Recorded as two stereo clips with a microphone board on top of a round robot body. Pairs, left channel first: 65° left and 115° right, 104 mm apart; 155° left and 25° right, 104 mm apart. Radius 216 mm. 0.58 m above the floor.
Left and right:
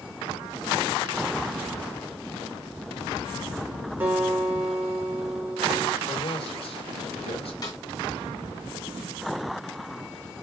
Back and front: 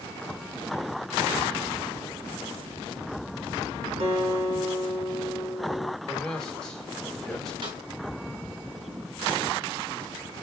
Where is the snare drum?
20° left, 4 m.